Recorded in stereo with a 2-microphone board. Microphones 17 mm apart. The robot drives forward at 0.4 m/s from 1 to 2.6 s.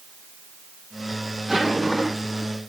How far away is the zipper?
About 6.5 m.